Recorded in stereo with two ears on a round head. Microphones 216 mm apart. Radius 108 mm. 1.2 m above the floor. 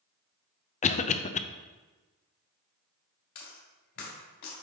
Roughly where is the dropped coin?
Left.